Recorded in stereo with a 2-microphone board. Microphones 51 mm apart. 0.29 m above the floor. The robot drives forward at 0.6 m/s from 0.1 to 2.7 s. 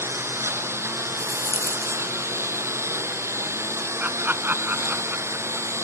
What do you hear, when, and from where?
0.0 s a lawn mower: 65° right (ahead or behind)
1.2 s a rattle: 65° right (ahead or behind); by 2.0 s 60° right (ahead or behind)
4.0 s laughter: 45° right (ahead or behind)